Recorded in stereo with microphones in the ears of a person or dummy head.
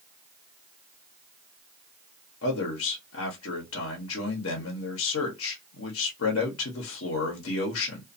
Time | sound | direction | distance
2.4 | a man speaking | 75° left (ahead or behind) | 1.0 m